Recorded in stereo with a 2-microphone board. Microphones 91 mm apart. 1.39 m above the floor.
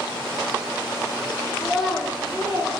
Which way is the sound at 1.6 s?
10° left (ahead or behind).